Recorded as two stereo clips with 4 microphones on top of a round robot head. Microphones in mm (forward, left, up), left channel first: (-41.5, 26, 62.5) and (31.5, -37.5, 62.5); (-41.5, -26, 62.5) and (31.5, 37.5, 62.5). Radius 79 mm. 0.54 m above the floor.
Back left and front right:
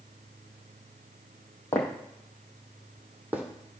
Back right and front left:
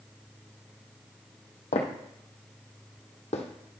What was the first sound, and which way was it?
Footsteps, 155° right.